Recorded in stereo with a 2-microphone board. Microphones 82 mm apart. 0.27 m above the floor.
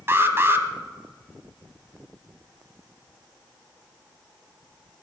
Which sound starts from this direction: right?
An alarm, at 0.1 s.